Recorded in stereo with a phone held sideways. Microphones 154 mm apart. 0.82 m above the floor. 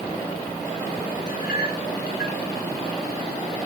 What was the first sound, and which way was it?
A clink, 90° left.